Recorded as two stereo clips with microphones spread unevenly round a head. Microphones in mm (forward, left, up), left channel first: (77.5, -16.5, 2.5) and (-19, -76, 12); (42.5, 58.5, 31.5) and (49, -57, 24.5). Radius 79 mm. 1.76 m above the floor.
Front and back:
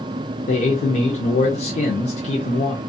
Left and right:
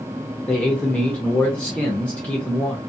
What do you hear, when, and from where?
0.5 s a man speaking: 20° left, 0.5 m